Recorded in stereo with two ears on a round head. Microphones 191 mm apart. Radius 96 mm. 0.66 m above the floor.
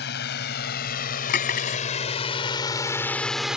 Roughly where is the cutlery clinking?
Left.